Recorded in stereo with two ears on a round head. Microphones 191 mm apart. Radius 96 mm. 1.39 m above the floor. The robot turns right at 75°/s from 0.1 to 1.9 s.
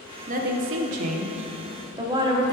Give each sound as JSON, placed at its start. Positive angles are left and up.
{"t": 0.3, "sound": "a woman speaking", "azimuth_deg": -140, "distance_m": 0.7}